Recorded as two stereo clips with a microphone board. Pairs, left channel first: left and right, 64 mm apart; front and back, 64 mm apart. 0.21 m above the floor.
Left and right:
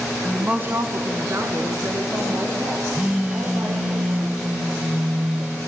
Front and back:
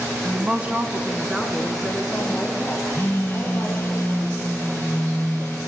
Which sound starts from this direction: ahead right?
A phone buzzing, at 2.9 s.